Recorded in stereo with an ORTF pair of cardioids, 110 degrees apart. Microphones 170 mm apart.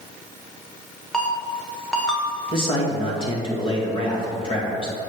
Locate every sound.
1.1 s a ringtone: 5° left, 1.4 m
2.5 s a man speaking: 30° left, 2.5 m